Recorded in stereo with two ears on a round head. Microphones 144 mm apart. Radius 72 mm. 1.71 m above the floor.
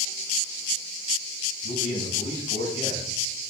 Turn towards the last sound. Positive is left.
turn(degrees=50)  # may be behind; listen again after turning